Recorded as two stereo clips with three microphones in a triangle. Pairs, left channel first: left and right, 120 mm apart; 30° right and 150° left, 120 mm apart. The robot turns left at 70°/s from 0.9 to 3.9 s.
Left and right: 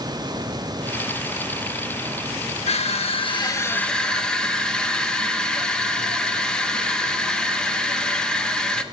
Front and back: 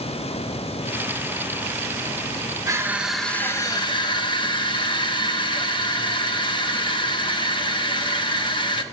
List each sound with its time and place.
2.7 s crushing: 95° left, 0.6 m; by 8.8 s 5° left, 0.6 m